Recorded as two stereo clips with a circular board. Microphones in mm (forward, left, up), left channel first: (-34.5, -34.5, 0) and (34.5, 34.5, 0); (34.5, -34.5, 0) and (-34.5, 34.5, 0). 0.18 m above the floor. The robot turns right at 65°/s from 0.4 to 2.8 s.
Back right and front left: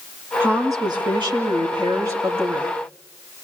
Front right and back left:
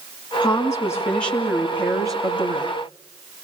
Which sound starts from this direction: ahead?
A woman speaking, at 0.4 s.